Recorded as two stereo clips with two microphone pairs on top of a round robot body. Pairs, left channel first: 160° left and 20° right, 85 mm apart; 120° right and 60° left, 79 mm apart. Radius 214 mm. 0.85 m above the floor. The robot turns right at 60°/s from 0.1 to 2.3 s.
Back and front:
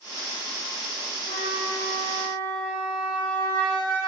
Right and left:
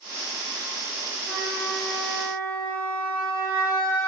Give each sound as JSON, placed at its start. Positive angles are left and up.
{"t": 1.3, "sound": "a flute", "azimuth_deg": 165, "distance_m": 1.4}